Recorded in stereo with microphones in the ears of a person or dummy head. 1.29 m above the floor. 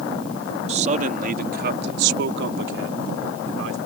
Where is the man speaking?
35° right (ahead or behind); by 3.8 s 80° right.